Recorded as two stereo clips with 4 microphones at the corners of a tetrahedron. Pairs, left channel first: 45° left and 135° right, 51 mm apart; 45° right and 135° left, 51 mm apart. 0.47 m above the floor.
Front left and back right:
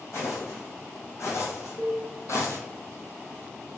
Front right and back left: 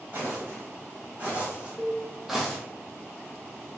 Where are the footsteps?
80° left, 2.0 m; by 2.6 s 40° left, 0.8 m.